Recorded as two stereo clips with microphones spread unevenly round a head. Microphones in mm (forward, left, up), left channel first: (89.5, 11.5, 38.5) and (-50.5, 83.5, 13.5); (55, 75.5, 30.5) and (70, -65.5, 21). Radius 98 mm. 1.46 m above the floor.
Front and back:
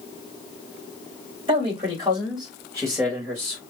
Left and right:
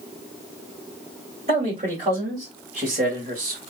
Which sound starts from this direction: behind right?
A man speaking, at 1.5 s.